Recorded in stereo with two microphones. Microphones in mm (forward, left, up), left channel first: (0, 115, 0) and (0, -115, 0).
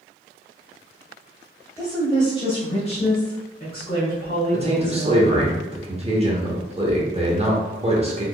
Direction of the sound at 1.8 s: 10° left (ahead or behind).